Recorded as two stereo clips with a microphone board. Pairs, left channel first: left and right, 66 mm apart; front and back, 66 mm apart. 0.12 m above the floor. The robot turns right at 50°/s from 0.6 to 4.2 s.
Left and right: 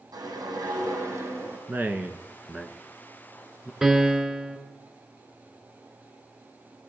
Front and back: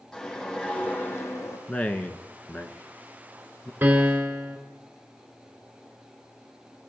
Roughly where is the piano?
Behind right.